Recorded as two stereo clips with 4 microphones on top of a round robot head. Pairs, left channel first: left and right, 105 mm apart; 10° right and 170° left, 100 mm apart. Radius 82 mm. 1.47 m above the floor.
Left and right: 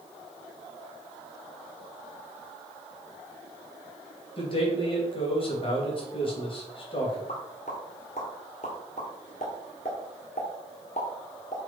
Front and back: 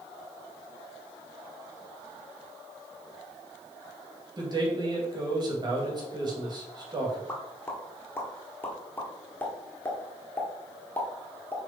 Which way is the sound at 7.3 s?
55° left.